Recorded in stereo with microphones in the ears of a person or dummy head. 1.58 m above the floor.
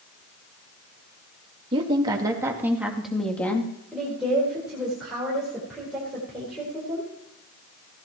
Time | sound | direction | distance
1.7 | a woman speaking | 30° right (ahead or behind) | 2.5 m
3.9 | a woman speaking | centre (ahead or behind) | 4.5 m